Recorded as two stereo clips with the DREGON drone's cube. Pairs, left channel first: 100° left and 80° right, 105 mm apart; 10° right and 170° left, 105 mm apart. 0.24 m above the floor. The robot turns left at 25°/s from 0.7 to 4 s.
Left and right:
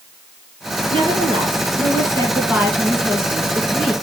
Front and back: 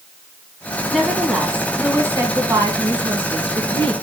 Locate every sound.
0.9 s a woman speaking: 100° right, 2 m; by 3.9 s 175° right, 2 m